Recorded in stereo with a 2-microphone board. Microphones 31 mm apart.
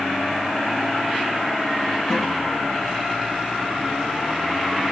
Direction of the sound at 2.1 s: 15° left (ahead or behind).